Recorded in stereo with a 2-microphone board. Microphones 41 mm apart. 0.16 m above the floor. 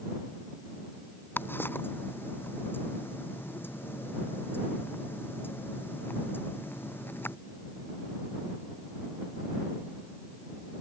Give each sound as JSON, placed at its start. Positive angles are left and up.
{"t": 1.4, "sound": "ticking", "side_deg": 65}